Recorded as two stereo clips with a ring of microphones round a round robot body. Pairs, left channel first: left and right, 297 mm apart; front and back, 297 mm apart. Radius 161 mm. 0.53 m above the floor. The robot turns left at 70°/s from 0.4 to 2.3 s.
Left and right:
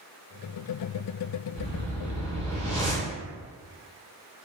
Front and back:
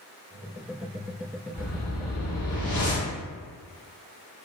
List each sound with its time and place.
1.5 s a whoosh: 30° left, 1.4 m; by 3.1 s 20° right, 1.4 m